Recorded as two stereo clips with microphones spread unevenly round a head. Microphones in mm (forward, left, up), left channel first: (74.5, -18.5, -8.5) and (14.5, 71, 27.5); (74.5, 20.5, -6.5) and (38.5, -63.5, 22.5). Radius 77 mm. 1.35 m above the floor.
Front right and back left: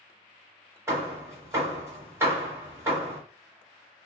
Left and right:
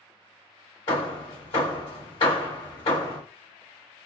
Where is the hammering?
115° left, 1.2 m.